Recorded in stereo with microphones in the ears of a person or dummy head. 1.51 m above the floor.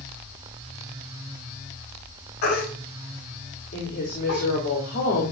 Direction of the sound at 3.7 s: 50° left (ahead or behind).